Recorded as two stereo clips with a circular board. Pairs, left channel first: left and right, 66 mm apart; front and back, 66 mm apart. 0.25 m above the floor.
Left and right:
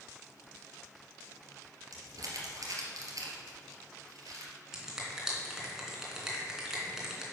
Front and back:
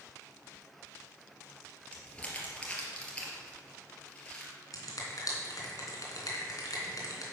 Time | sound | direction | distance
1.9 | crumpling | 70° right | 2.5 m
4.7 | a finger snap | 10° right | 2.5 m